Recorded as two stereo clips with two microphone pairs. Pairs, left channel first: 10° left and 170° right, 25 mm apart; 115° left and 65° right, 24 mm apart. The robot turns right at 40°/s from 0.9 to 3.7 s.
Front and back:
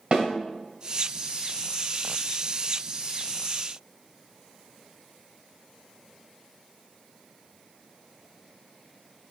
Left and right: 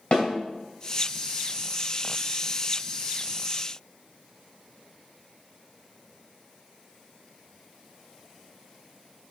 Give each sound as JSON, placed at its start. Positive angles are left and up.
{"t": 0.1, "sound": "a snare drum", "azimuth_deg": 155, "distance_m": 2.5}